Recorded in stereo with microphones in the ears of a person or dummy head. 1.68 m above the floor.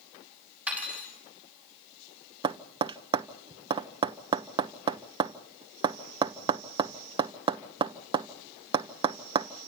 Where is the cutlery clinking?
10° right (ahead or behind), 6 m.